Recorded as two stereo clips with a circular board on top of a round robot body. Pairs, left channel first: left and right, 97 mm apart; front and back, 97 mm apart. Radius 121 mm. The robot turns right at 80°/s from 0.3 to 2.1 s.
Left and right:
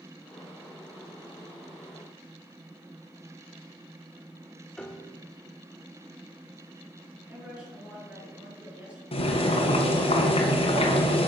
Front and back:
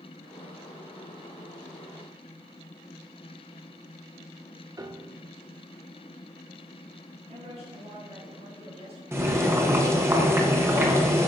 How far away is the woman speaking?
About 5 m.